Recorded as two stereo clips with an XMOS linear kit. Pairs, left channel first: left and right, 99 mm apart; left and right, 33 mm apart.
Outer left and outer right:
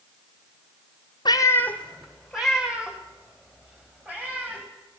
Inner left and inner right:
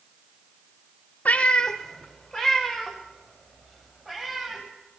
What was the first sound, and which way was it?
A cat meowing, 50° left (ahead or behind).